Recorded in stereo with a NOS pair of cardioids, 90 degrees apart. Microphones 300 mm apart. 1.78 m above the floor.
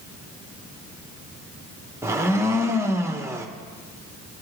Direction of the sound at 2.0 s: 10° right.